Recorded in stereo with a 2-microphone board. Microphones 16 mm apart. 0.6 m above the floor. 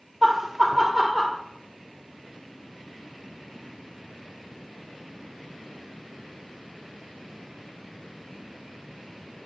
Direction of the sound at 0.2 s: 20° right (ahead or behind).